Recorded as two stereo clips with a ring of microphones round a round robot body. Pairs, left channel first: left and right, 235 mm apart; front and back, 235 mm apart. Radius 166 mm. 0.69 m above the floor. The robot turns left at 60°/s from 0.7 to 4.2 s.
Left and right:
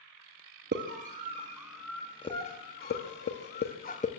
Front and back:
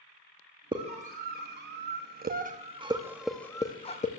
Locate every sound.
0.7 s a scream: 115° right, 0.9 m; by 4.1 s 45° left, 0.9 m